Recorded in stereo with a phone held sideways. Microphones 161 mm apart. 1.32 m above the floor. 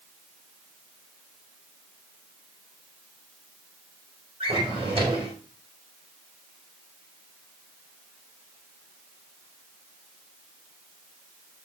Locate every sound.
4.4 s a drawer: 35° right (ahead or behind), 3.5 m